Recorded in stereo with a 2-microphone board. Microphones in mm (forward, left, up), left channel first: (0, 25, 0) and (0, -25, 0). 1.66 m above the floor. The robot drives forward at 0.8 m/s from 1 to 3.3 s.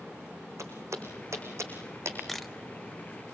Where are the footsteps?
70° right (ahead or behind), 5 m; by 2.2 s 60° right (ahead or behind), 4.5 m.